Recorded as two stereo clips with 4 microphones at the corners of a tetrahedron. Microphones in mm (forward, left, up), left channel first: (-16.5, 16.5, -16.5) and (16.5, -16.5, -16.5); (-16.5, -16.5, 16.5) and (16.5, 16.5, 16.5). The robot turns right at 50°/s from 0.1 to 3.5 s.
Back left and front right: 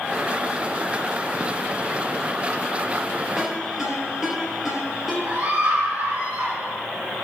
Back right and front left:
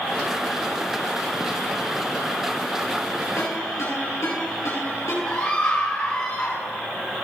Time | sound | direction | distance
3.4 | a ringtone | 135° right | 4 m
5.2 | a scream | 80° right | 2.5 m